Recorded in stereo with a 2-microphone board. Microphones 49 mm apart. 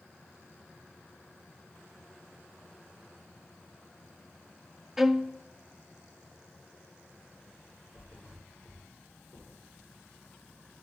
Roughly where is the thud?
Right.